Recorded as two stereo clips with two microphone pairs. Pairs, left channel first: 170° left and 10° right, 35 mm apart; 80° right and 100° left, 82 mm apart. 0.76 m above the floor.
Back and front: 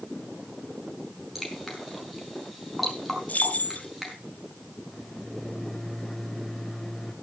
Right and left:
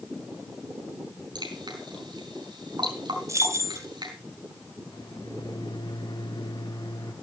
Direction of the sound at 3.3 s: 145° left.